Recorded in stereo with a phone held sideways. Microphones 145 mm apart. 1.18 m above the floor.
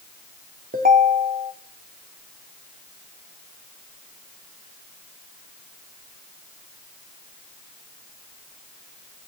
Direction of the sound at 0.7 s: 80° right.